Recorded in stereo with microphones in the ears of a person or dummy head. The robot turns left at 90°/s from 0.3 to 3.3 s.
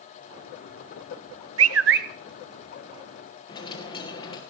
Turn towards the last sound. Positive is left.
turn(degrees=30)  # may be behind; listen again after turning